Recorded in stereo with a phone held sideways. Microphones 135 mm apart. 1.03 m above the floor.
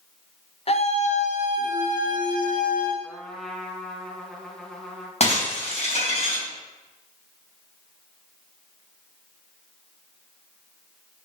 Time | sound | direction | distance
0.7 | a scream | 45° left (ahead or behind) | 1.0 m
3.0 | a trumpet | 5° left (ahead or behind) | 2.5 m
5.2 | breaking glass | 55° left (ahead or behind) | 3.5 m